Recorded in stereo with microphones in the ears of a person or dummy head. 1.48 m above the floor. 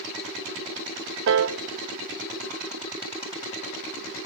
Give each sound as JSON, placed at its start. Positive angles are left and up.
{"t": 1.3, "sound": "a piano", "side_deg": -65, "distance_m": 0.7}